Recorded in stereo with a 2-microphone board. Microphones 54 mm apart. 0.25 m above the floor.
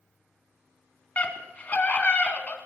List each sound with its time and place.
1.2 s a scream: 30° left (ahead or behind), 2.5 m